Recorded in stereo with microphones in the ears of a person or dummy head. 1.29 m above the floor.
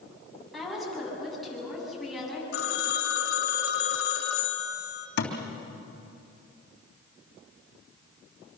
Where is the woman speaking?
Centre (ahead or behind), 8.5 m.